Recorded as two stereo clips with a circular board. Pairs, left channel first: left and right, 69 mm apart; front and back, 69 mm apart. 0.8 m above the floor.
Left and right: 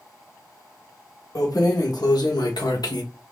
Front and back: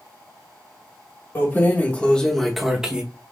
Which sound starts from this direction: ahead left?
Keys jangling, at 1.4 s.